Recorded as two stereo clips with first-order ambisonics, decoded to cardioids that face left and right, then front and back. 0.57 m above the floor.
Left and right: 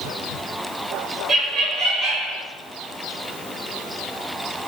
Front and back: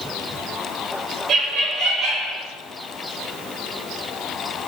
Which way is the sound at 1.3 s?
130° right.